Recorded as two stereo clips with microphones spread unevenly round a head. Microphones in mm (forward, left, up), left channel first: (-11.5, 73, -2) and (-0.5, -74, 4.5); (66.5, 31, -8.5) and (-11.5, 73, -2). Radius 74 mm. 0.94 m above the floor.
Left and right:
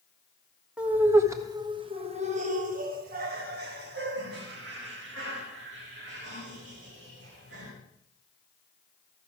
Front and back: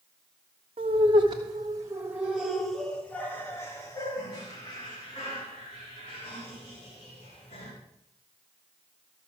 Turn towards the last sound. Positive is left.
turn(degrees=-65)